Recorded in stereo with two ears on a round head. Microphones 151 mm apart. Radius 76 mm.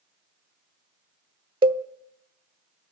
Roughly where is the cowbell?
Right.